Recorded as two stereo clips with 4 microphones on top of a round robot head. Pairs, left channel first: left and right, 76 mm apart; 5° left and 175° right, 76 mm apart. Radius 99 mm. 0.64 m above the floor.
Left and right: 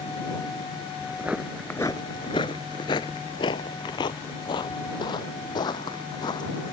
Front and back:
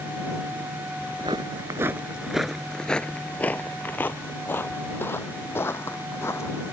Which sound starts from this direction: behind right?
Footsteps, at 1.0 s.